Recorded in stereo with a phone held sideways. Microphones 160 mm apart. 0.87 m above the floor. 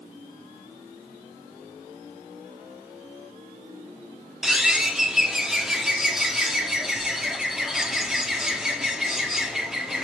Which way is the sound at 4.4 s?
5° right (ahead or behind).